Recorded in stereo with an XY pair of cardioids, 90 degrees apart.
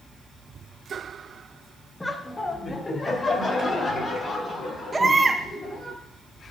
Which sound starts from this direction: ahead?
Laughter, at 2.0 s.